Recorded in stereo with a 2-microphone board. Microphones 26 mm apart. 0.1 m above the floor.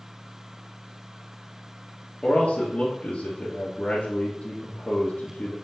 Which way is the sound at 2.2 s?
45° left (ahead or behind).